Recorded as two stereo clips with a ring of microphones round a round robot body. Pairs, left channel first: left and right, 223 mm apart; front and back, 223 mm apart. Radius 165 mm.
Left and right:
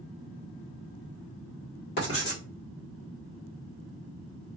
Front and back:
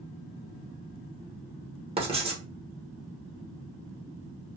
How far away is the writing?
About 1.2 m.